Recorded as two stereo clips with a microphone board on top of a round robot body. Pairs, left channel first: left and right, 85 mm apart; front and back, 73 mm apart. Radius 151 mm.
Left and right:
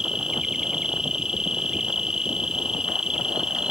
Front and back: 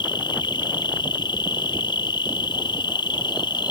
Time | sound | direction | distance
0.0 | an insect | 10° right | ?